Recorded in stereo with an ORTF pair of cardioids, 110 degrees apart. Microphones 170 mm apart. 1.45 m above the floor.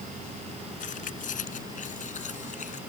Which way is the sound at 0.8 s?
50° left.